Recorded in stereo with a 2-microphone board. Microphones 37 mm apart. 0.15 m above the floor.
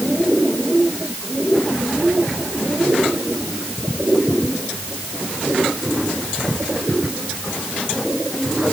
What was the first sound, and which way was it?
Only background noise.